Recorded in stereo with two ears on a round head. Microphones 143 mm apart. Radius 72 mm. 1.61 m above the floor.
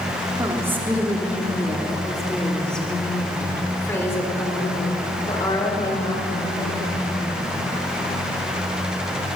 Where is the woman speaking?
20° right (ahead or behind), 3 m; by 7.5 s 30° left (ahead or behind), 6 m.